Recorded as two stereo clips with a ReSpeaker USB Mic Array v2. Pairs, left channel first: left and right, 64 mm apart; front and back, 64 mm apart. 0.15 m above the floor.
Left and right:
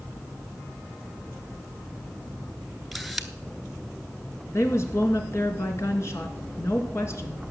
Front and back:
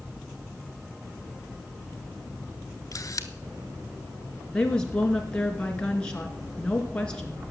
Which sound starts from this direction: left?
A woman speaking, at 4.5 s.